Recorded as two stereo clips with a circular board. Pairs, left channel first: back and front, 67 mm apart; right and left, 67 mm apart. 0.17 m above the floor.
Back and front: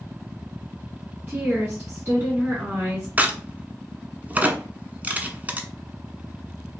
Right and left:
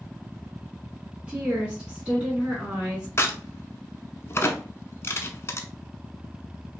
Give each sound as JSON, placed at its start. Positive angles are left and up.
{"t": 1.3, "sound": "a woman speaking", "azimuth_deg": 30, "distance_m": 2.0}
{"t": 3.2, "sound": "a crack", "azimuth_deg": -55, "distance_m": 0.8}